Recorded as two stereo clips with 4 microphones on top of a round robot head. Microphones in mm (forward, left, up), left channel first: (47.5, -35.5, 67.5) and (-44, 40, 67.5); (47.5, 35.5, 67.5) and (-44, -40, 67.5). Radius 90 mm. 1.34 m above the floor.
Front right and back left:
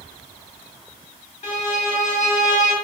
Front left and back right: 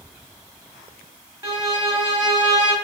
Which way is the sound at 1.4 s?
70° right.